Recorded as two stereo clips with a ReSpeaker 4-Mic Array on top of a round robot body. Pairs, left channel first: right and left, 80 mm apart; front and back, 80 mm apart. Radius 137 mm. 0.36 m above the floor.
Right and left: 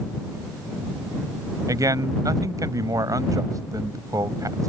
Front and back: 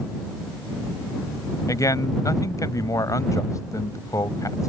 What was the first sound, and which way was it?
A man speaking, 45° left.